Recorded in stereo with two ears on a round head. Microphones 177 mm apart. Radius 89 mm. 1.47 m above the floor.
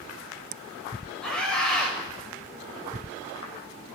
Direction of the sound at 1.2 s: 5° left (ahead or behind).